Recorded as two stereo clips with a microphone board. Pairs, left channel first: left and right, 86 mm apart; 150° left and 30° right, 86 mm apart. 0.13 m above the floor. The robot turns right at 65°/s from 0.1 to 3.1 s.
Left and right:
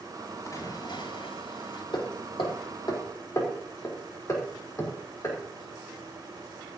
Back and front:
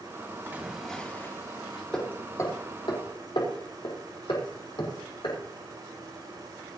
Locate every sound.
0.5 s a splash: 30° left, 5.5 m; by 1.8 s 120° left, 5.5 m
1.9 s hammering: 70° left, 4.5 m; by 5.4 s 145° left, 4.5 m